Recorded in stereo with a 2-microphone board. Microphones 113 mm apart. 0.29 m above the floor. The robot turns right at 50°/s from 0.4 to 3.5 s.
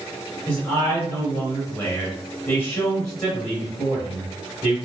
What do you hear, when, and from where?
0.5 s a man speaking: 10° left (ahead or behind), 1.6 m; by 4.8 s centre (ahead or behind), 1.6 m